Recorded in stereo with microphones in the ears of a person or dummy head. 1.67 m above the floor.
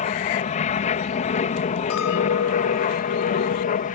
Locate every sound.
0.0 s an aircraft: 40° left (ahead or behind)
1.9 s a clink: 75° left (ahead or behind)